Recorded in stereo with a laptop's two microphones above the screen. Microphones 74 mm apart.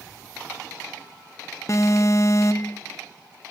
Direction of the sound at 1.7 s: 45° left (ahead or behind).